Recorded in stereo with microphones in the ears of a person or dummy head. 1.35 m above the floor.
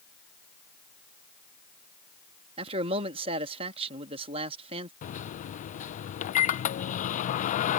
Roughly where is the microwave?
Left.